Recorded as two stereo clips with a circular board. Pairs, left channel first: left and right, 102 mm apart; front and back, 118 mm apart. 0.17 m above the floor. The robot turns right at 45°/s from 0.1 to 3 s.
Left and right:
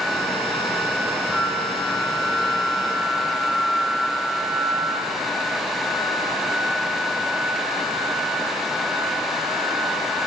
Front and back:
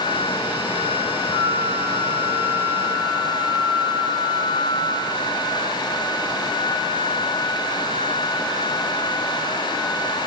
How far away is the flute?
About 2.5 m.